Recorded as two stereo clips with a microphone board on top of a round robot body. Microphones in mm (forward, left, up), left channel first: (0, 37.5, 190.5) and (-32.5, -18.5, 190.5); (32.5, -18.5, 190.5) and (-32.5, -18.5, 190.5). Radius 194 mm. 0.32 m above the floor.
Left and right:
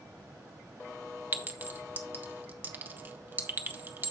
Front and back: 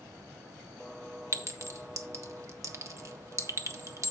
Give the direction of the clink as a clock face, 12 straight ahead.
6 o'clock.